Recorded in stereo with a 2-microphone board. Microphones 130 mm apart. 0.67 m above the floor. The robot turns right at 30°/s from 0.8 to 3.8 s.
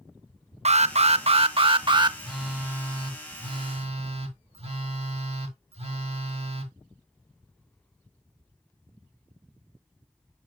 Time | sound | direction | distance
0.7 | an alarm | 80° right | 0.6 m
2.2 | a phone buzzing | straight behind | 1.6 m